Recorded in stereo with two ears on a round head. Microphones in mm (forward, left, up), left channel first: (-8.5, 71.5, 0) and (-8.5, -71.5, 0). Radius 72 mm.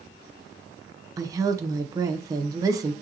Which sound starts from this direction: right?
A woman speaking, at 1.2 s.